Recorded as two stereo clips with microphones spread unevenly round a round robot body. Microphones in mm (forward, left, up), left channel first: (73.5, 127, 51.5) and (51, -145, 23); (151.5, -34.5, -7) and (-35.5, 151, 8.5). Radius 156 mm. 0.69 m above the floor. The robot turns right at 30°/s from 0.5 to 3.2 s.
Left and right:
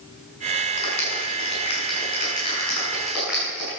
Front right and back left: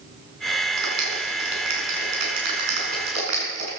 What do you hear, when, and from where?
0.8 s a clap: 105° left, 6.5 m; by 3.8 s straight behind, 6.5 m